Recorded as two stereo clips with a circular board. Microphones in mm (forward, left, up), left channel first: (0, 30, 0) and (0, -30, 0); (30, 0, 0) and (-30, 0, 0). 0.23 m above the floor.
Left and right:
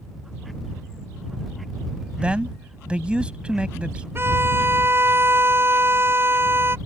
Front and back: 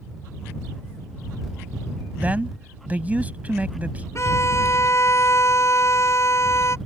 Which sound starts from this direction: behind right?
A man speaking, at 2.2 s.